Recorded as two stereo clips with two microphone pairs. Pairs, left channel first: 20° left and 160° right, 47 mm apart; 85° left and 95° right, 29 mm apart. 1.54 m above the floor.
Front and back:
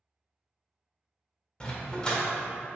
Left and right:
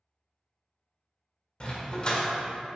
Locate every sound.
1.6 s a dog barking: 75° left, 1.5 m